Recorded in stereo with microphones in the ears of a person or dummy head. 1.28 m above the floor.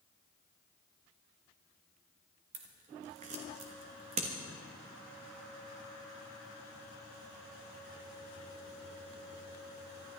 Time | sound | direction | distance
2.5 | scissors | 35° right (ahead or behind) | 1.4 m